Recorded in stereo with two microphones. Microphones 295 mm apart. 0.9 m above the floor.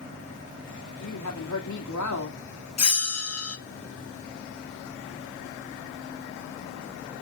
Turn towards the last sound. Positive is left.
turn(degrees=55)  # may be behind; listen again after turning